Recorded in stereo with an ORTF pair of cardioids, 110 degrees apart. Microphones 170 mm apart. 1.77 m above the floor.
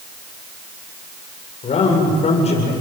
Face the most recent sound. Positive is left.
turn(degrees=40)